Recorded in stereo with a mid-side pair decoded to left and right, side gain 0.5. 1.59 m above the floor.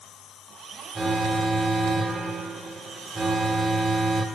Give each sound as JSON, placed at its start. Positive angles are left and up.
{"t": 0.9, "sound": "an alarm", "azimuth_deg": -20, "distance_m": 0.9}